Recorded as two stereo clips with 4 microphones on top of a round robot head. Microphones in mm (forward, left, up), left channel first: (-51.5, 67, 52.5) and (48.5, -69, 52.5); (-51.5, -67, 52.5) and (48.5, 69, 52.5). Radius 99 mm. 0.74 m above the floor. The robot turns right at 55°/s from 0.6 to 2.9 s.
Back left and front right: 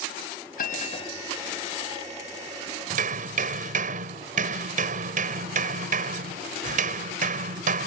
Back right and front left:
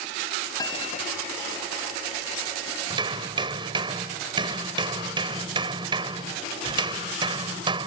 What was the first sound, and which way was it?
A bell, 165° left.